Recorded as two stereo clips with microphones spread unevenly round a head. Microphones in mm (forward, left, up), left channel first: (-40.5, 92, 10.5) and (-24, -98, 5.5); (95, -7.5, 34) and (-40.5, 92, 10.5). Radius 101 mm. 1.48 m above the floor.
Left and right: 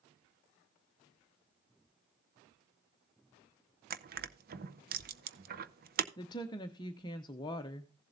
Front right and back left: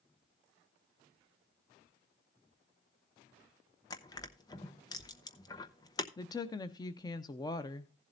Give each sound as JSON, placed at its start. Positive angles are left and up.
{"t": 3.9, "sound": "crushing", "azimuth_deg": -90, "distance_m": 0.6}
{"t": 6.2, "sound": "a woman speaking", "azimuth_deg": 25, "distance_m": 0.6}